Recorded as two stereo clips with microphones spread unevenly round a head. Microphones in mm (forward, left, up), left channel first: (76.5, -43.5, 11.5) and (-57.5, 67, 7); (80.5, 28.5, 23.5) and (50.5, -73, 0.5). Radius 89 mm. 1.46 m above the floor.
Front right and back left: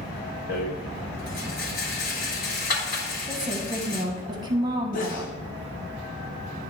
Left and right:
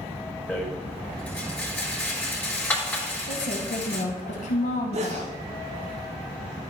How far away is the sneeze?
About 0.9 m.